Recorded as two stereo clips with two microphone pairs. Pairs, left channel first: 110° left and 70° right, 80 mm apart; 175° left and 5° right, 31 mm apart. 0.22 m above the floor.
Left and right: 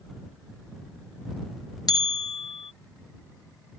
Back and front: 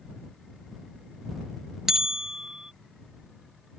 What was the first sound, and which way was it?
A bell, 75° left.